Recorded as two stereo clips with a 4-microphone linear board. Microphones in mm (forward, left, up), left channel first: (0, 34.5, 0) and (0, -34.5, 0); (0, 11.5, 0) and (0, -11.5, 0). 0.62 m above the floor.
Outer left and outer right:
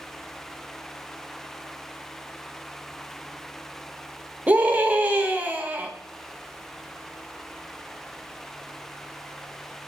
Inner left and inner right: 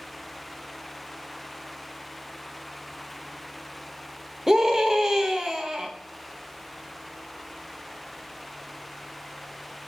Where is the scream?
25° right (ahead or behind), 0.6 m.